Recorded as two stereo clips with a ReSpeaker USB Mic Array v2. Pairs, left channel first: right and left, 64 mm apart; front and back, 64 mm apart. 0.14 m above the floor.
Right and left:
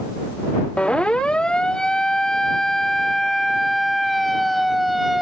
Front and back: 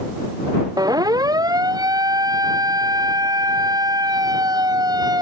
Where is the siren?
165° right; by 5.2 s straight behind.